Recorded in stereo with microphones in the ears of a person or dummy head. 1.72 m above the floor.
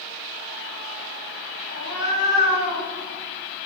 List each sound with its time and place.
1.7 s a cat meowing: 50° left (ahead or behind), 1.8 m